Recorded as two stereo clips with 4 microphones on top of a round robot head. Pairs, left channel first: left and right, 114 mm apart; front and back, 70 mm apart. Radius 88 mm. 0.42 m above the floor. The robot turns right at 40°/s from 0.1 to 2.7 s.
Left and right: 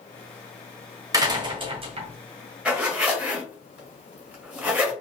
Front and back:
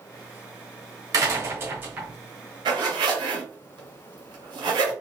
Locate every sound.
1.1 s a door slam: 145° right, 1.4 m; by 2.1 s 105° right, 1.4 m
2.6 s a zipper: 170° right, 1.9 m; by 4.9 s 165° right, 1.9 m